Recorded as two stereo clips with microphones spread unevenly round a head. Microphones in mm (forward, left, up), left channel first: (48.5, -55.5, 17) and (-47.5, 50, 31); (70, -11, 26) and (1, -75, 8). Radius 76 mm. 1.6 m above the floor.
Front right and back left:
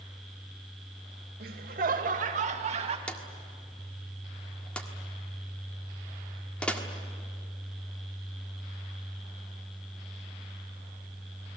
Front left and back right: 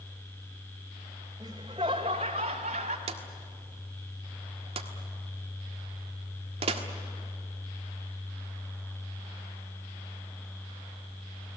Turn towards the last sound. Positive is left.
turn(degrees=-135)